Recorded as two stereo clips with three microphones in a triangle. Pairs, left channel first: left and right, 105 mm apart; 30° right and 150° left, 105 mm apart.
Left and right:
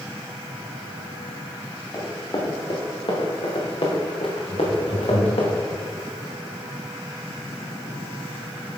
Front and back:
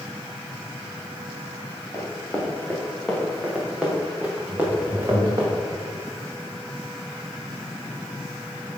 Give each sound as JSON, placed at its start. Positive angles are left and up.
{"t": 1.9, "sound": "running footsteps", "azimuth_deg": 40, "distance_m": 3.5}
{"t": 4.5, "sound": "laughter", "azimuth_deg": 90, "distance_m": 3.0}